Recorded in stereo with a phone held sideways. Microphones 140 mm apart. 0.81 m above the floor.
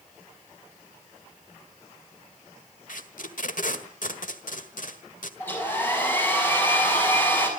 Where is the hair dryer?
15° left (ahead or behind), 6.5 m.